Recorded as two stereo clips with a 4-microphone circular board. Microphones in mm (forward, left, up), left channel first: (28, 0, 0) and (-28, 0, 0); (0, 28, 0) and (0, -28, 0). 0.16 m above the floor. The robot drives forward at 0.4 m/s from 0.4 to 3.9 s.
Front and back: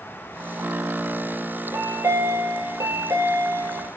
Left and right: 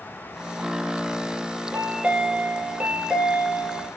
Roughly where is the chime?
Behind right.